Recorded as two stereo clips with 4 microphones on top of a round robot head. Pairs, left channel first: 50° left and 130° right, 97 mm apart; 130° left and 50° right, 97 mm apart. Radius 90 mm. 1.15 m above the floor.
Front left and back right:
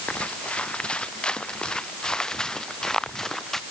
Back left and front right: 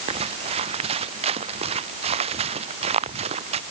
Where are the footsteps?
30° right; by 3.6 s 35° right.